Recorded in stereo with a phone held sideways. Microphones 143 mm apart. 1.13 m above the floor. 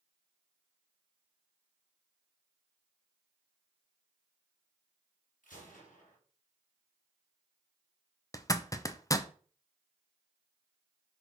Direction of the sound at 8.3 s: 25° left (ahead or behind).